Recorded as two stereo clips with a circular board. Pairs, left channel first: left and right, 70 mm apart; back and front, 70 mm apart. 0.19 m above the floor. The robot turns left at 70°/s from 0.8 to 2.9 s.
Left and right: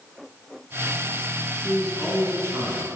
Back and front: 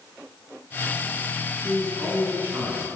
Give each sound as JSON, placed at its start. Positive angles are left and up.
{"t": 1.6, "sound": "a man speaking", "azimuth_deg": 5, "distance_m": 1.9}